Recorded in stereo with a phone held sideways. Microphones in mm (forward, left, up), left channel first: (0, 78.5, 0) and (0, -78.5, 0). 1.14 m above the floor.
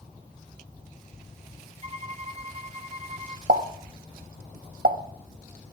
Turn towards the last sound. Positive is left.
turn(degrees=-75)  # may be behind; listen again after turning